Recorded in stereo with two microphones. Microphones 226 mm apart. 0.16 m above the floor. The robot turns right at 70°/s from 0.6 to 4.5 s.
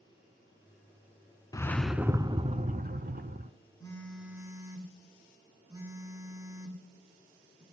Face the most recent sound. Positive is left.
turn(degrees=-155)